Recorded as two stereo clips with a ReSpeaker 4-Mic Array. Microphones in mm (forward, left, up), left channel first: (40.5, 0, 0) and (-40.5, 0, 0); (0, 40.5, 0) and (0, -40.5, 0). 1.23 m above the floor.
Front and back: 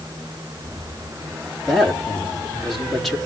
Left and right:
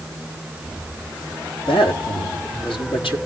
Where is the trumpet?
No trumpet in this recording.